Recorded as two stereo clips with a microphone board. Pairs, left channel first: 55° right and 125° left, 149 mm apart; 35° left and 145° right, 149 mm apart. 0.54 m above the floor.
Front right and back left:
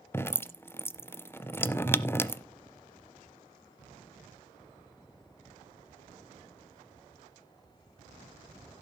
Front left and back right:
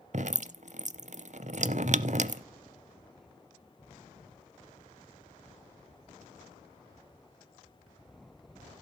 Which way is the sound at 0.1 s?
130° right.